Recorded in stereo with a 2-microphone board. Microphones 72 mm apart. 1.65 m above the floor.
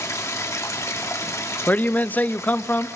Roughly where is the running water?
Left.